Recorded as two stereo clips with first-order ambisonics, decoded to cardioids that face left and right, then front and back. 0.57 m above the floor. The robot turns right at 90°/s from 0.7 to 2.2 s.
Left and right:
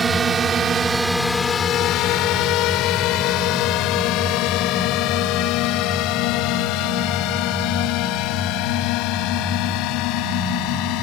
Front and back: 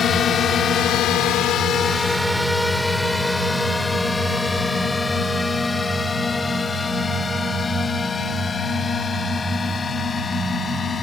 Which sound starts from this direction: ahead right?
A drone, at 0.0 s.